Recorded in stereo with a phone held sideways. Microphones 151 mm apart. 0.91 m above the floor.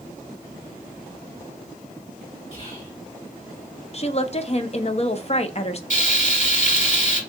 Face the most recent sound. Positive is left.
turn(degrees=55)  # may be behind; listen again after turning